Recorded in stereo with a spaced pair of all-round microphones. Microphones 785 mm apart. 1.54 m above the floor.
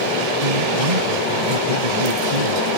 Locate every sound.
0.4 s a man speaking: 55° right (ahead or behind)